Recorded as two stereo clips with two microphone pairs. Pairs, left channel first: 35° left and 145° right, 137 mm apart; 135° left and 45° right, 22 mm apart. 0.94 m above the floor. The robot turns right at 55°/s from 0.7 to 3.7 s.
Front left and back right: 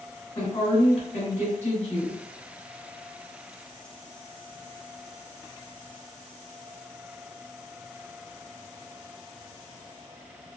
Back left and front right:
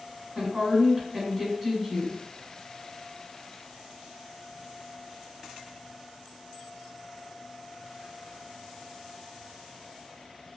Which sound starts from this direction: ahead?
A woman speaking, at 0.3 s.